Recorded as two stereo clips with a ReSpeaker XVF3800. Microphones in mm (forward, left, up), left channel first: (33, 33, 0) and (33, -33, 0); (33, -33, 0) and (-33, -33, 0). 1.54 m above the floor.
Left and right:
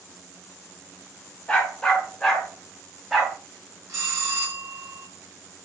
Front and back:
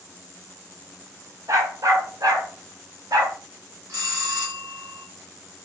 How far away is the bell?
About 4 m.